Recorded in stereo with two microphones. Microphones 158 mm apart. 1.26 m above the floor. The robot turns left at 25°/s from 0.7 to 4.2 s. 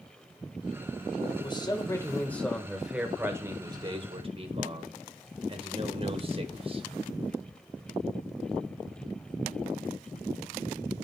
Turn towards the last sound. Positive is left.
turn(degrees=-40)